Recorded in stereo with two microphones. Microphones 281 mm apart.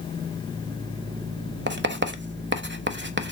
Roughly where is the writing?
Right.